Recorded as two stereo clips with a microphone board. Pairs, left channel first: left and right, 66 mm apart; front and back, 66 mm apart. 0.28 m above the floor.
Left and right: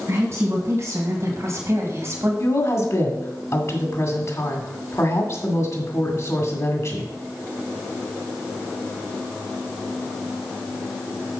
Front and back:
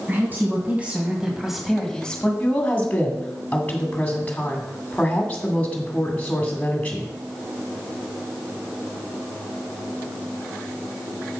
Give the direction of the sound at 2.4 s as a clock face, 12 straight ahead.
10 o'clock.